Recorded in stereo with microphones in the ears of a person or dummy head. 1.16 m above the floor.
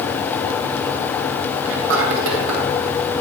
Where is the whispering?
85° right, 3 m.